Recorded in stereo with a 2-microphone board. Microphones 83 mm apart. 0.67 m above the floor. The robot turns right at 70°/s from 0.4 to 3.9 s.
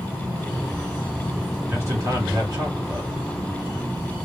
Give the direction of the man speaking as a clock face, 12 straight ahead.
5 o'clock.